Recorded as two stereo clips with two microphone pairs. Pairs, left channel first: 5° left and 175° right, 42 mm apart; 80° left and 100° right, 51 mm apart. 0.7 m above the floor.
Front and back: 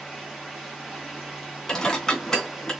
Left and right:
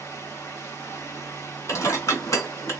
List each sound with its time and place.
0.0 s running water: 105° left, 3.5 m
1.7 s dishes clattering: 85° left, 2.5 m